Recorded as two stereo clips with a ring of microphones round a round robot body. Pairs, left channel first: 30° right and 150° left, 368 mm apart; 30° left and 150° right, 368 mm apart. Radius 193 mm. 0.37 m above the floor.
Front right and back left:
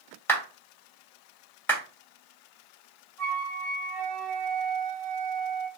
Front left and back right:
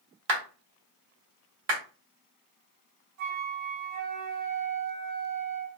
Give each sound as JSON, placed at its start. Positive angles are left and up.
{"t": 0.3, "sound": "a clap", "azimuth_deg": -110, "distance_m": 1.4}
{"t": 3.2, "sound": "a flute", "azimuth_deg": -120, "distance_m": 1.7}